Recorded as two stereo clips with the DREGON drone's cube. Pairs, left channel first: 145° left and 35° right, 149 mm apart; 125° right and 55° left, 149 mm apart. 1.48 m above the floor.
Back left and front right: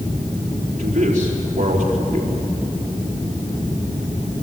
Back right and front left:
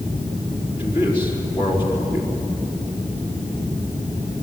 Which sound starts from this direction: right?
A man speaking, at 0.8 s.